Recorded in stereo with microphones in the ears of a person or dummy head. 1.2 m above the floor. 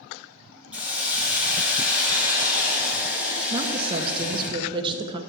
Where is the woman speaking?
25° right (ahead or behind), 0.7 m.